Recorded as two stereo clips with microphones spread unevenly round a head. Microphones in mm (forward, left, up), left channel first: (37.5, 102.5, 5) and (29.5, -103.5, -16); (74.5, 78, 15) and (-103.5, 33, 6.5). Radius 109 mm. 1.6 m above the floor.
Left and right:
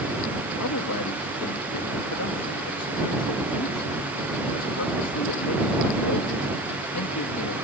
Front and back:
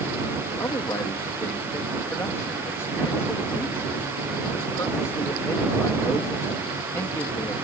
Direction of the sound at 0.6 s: 90° left.